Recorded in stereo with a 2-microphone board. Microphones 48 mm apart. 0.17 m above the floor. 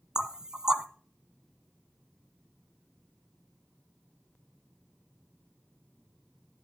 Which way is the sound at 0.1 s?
15° right (ahead or behind).